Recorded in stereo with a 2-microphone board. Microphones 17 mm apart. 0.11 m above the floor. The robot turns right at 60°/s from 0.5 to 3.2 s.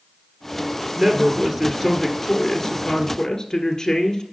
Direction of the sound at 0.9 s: 80° right.